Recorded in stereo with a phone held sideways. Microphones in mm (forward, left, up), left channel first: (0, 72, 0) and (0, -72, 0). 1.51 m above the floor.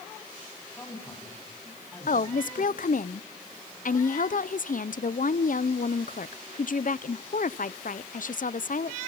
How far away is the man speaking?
About 9 m.